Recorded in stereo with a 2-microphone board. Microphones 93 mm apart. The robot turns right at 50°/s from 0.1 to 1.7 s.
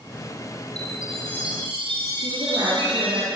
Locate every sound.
0.8 s a chime: 130° right, 6 m; by 3.2 s 85° right, 6 m
2.2 s a woman speaking: 60° right (ahead or behind), 6.5 m